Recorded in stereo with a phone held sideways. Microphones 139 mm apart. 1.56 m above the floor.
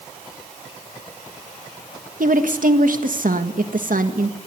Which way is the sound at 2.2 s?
70° right (ahead or behind).